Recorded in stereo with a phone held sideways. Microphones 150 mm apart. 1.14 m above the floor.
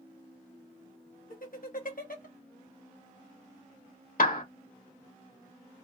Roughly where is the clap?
Left.